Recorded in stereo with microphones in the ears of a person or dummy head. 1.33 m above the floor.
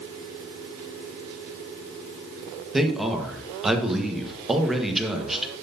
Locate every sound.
2.7 s a man speaking: 5° right (ahead or behind), 1.4 m